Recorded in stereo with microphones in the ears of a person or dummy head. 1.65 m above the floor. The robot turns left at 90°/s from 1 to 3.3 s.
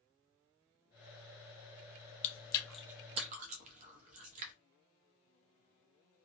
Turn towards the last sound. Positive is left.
turn(degrees=-40)  # may be behind; listen again after turning